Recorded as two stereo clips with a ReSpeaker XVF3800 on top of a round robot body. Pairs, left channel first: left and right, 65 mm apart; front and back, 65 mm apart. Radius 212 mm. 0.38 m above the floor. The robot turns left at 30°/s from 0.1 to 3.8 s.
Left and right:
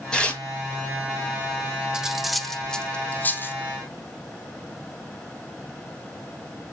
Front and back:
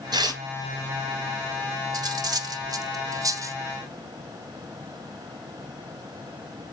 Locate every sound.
0.1 s tearing paper: 170° left, 1.2 m; by 0.4 s 160° left, 1.2 m
1.9 s cutlery clinking: 165° right, 1.0 m; by 3.6 s 145° left, 1.0 m